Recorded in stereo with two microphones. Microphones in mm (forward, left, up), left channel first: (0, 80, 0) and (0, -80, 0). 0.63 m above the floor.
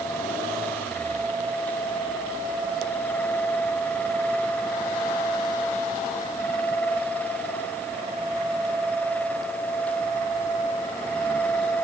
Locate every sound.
Only background noise.